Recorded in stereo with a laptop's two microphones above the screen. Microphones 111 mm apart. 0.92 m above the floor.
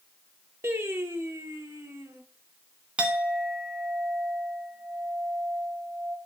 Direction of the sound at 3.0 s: 10° right (ahead or behind).